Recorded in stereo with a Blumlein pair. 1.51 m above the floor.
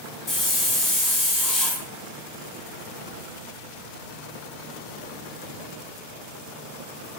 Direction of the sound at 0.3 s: 20° left.